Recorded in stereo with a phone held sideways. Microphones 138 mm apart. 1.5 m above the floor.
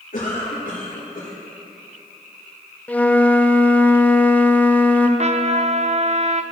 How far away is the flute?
About 0.7 m.